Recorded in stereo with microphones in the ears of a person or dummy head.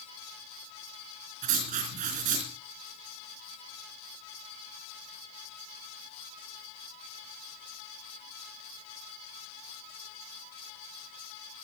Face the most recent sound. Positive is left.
turn(degrees=-40)  # may be behind; listen again after turning